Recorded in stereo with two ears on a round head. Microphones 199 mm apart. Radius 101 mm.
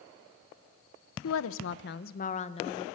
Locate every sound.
1.2 s a woman speaking: 70° left (ahead or behind), 1.0 m; by 2.9 s 20° left (ahead or behind), 1.4 m